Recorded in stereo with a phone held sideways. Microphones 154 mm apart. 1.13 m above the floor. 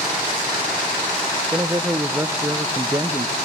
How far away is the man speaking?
About 0.8 m.